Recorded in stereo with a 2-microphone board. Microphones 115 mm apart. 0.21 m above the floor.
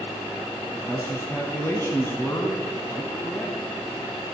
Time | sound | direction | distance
0.6 | a man speaking | 25° left (ahead or behind) | 1.3 m